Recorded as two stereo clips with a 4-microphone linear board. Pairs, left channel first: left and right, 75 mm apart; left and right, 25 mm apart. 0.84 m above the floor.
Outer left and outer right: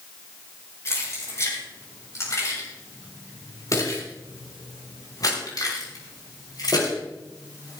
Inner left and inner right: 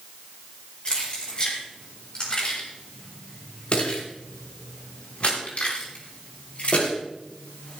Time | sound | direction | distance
0.8 | keys jangling | 40° left (ahead or behind) | 7.5 m